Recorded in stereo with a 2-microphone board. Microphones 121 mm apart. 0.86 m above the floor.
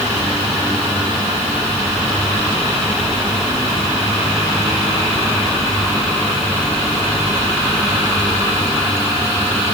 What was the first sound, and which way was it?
Only background noise.